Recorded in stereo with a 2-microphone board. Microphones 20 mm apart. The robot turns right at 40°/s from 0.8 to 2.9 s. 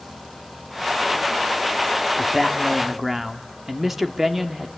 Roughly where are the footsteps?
I don't hear footsteps.